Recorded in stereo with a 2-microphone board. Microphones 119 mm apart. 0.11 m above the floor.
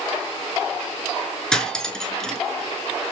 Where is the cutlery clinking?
5° left (ahead or behind), 0.7 m.